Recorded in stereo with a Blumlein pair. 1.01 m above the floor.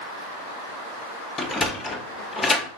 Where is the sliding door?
15° left, 0.7 m.